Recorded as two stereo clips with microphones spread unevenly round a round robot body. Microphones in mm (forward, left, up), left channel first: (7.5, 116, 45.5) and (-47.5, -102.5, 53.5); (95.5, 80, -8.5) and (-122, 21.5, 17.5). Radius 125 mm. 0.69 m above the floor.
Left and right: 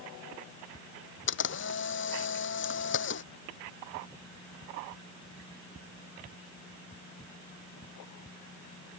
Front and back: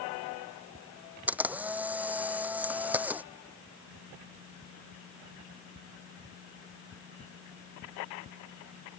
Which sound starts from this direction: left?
A camera shutter, at 1.3 s.